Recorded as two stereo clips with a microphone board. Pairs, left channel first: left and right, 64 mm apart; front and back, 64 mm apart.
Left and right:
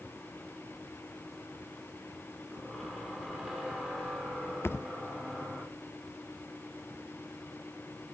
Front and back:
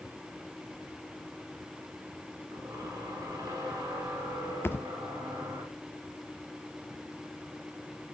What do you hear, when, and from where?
2.5 s a squeak: 175° right, 6 m
4.6 s a thud: 50° left, 0.5 m